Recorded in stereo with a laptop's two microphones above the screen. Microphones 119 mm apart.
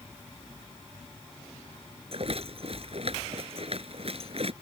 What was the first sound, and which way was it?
A rattle, 55° right (ahead or behind).